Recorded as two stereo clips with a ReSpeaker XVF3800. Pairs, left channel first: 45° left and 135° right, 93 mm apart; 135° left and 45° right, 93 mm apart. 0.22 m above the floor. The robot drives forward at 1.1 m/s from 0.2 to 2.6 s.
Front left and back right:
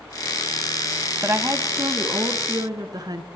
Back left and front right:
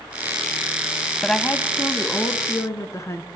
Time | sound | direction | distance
1.2 | a woman speaking | 145° right | 1.0 m